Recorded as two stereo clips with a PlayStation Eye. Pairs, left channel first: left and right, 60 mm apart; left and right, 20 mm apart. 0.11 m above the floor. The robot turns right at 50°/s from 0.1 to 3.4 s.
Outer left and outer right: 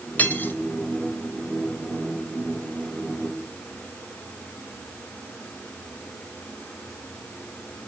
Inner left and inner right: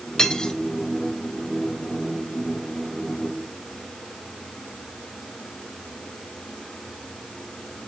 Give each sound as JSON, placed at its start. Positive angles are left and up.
{"t": 0.2, "sound": "cutlery clinking", "side_deg": 25, "distance_m": 0.8}